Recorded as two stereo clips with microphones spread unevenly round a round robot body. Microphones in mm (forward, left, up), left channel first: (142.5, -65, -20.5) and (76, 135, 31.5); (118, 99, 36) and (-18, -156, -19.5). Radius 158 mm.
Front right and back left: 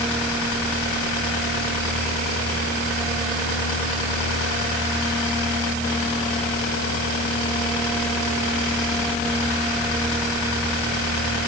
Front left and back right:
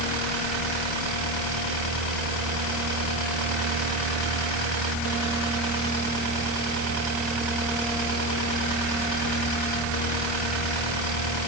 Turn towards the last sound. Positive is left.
No sound to turn to.